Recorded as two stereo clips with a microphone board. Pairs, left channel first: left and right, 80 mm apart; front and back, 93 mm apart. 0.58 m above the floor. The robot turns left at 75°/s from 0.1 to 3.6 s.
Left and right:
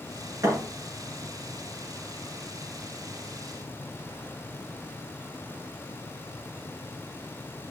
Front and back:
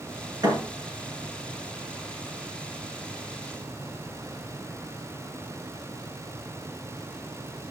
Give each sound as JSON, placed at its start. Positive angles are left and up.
{"t": 0.4, "sound": "a thud", "azimuth_deg": -135, "distance_m": 5.0}